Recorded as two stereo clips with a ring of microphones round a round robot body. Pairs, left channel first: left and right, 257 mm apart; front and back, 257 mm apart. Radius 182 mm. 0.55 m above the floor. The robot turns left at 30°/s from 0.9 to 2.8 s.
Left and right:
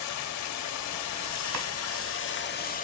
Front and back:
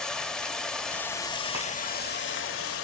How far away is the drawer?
About 1.4 m.